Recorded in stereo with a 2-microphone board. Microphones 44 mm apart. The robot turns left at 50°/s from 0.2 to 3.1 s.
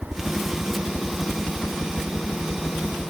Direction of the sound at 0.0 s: 5° right (ahead or behind).